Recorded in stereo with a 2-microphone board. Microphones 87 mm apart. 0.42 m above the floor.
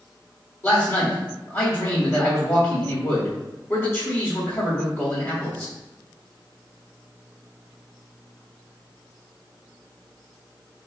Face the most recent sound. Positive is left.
turn(degrees=30)  # may be behind; listen again after turning